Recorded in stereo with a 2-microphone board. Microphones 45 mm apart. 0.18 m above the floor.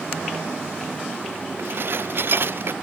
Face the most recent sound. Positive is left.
turn(degrees=-60)  # may be behind; listen again after turning